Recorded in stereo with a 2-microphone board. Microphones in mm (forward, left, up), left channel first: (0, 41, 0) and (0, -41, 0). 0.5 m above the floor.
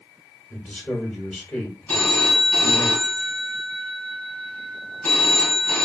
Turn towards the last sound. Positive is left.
turn(degrees=15)  # may be behind; listen again after turning